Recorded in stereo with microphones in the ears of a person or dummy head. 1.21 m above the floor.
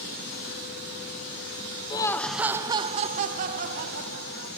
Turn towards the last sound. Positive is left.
turn(degrees=-65)  # may be behind; listen again after turning